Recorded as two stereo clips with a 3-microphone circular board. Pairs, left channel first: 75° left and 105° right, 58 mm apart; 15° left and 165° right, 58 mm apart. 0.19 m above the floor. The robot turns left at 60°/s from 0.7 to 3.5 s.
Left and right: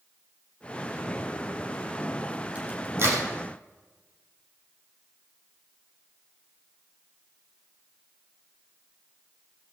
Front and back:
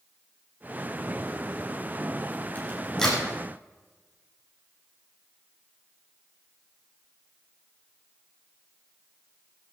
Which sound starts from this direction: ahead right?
A crack, at 2.5 s.